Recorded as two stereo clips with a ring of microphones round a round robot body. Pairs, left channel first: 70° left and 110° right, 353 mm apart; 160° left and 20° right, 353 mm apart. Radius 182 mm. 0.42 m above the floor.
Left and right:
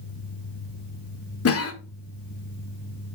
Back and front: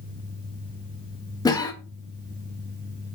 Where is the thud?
I don't hear a thud.